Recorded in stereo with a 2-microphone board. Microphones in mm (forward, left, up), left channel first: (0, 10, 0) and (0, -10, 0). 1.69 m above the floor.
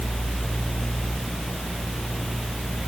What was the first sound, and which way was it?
Only background noise.